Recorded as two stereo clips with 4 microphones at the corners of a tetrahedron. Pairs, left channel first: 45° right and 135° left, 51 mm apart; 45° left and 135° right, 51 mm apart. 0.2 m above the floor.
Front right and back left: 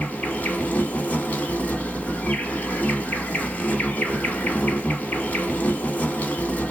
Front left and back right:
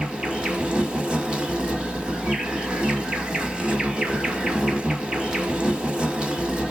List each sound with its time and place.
0.0 s an insect: 75° right, 0.9 m